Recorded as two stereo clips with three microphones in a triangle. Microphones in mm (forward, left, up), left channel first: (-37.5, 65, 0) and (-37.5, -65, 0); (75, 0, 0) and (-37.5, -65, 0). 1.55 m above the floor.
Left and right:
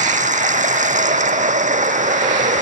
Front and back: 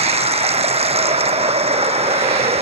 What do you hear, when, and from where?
0.0 s running water: 110° right